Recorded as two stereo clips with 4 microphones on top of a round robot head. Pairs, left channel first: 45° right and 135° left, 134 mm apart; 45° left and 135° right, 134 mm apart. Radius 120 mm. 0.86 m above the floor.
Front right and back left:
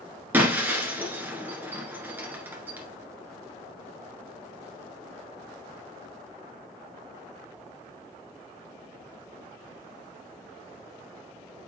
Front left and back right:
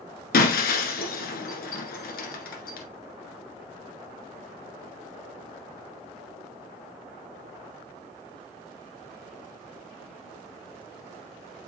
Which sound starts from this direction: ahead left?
Breaking glass, at 0.3 s.